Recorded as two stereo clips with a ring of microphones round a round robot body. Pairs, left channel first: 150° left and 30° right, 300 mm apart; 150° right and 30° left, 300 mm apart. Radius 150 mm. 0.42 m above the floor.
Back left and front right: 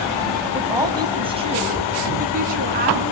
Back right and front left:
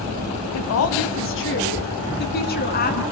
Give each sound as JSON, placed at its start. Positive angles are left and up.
{"t": 0.5, "sound": "a woman speaking", "azimuth_deg": -115, "distance_m": 3.5}